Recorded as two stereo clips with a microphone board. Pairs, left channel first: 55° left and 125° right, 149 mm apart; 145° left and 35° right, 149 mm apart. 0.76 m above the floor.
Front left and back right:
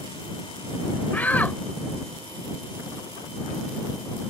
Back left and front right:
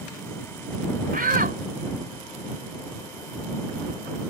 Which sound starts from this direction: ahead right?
A shout, at 1.1 s.